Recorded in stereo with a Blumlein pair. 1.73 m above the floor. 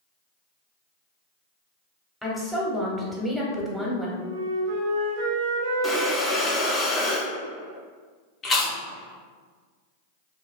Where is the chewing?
20° left, 0.8 m.